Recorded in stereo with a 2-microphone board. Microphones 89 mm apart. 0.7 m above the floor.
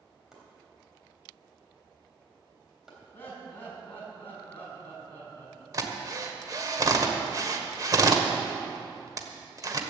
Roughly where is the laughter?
Left.